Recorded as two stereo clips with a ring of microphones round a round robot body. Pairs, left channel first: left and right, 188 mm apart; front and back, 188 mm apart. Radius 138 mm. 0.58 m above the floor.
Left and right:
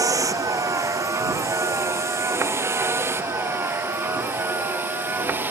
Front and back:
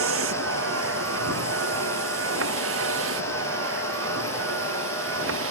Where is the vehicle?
165° right; by 5.5 s 170° right.